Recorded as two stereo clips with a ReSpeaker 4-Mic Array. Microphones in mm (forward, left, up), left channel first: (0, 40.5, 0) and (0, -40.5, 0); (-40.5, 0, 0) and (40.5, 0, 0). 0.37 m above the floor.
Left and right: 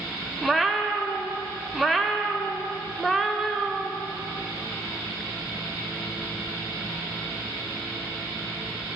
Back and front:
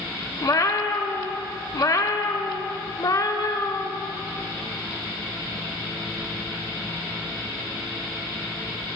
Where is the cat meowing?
Straight behind, 0.5 m.